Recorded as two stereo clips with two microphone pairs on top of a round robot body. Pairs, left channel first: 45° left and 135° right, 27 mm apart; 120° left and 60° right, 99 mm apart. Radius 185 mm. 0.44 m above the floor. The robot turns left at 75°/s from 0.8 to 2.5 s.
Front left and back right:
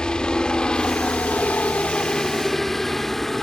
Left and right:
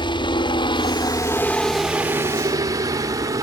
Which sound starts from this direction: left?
A helicopter, at 0.0 s.